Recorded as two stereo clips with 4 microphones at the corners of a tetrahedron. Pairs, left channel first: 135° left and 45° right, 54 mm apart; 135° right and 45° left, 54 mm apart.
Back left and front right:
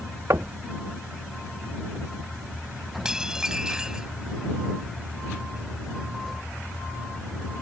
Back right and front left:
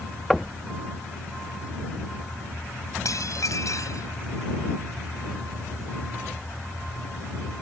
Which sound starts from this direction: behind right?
Dishes clattering, at 3.0 s.